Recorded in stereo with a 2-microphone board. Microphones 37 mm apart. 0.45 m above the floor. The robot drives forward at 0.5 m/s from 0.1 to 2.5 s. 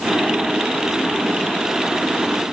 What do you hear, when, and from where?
Only background noise.